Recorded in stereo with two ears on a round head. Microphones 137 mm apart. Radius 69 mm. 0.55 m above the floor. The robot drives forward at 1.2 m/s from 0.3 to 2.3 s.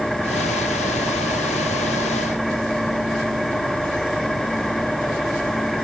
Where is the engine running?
Centre (ahead or behind).